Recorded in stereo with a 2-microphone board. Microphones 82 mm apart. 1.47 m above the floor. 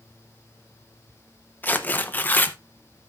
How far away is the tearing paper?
About 0.8 m.